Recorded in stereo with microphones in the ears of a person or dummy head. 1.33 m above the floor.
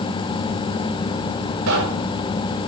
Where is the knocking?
75° right (ahead or behind), 6 m.